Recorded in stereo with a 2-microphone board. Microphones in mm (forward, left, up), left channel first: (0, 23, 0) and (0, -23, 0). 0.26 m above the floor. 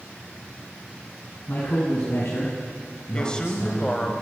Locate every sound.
1.5 s a man speaking: 40° left (ahead or behind), 2.5 m; by 4.1 s 65° left (ahead or behind), 3.5 m
3.1 s a man speaking: 20° left (ahead or behind), 1.2 m